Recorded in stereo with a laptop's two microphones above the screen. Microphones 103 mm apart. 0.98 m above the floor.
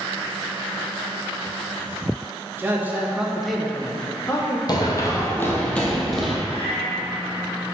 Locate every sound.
2.6 s a man speaking: 20° right (ahead or behind), 1.0 m; by 4.6 s 30° left (ahead or behind), 0.9 m
4.7 s running footsteps: 40° left (ahead or behind), 1.3 m; by 6.3 s 5° right (ahead or behind), 1.3 m
6.5 s a cat meowing: 65° left (ahead or behind), 1.5 m